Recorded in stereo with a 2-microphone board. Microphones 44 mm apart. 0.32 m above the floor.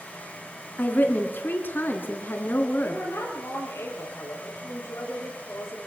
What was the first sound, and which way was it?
A woman speaking, 45° left (ahead or behind).